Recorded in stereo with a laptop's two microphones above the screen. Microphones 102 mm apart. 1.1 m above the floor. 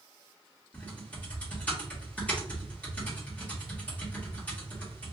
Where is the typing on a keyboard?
15° left (ahead or behind), 1.5 m.